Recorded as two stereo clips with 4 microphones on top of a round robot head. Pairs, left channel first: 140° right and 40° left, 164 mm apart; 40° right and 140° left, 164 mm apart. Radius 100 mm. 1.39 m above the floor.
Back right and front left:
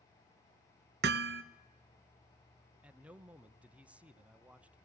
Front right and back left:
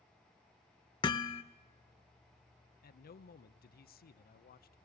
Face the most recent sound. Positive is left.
turn(degrees=-40)